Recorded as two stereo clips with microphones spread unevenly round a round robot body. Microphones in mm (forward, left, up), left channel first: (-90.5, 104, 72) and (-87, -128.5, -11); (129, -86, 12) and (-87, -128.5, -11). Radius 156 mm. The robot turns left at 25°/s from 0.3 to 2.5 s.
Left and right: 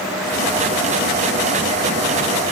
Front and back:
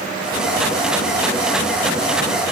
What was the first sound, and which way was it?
Only background noise.